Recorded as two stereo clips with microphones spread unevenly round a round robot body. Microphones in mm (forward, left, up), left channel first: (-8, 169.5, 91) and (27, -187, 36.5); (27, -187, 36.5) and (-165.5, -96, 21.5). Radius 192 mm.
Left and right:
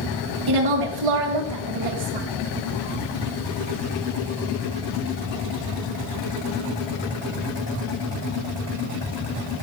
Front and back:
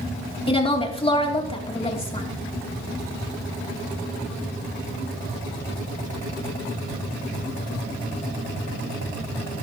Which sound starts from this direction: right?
A woman speaking, at 0.5 s.